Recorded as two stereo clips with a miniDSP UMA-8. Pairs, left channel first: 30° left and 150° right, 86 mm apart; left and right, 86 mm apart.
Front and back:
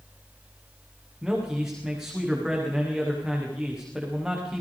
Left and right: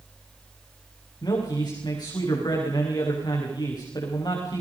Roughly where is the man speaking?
Behind left.